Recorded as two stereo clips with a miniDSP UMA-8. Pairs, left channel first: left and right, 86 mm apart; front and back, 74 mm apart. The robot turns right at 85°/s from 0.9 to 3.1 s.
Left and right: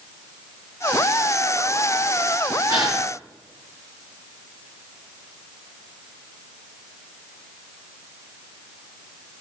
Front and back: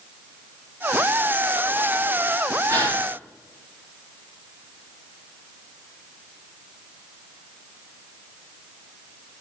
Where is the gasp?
135° right, 5.5 m; by 3.0 s 110° right, 5.5 m.